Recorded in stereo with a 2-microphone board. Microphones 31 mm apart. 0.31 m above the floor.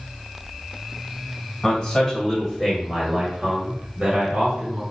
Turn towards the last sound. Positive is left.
turn(degrees=-45)  # may be behind; listen again after turning